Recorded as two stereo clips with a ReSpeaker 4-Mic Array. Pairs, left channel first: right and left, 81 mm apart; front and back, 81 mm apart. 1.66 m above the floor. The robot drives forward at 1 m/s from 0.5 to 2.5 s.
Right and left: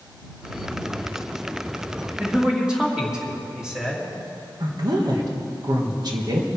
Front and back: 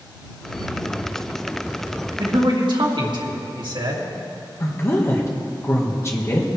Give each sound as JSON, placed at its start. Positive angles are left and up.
{"t": 2.2, "sound": "a man speaking", "azimuth_deg": 170, "distance_m": 2.0}
{"t": 4.6, "sound": "a woman speaking", "azimuth_deg": 55, "distance_m": 1.8}